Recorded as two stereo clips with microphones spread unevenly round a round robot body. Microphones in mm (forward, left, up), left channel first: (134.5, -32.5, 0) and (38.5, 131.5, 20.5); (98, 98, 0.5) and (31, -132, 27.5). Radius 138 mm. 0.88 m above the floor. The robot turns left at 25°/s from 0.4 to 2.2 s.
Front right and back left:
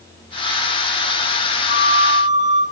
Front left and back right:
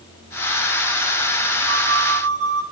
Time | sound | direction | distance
1.7 | a flute | straight behind | 2.5 m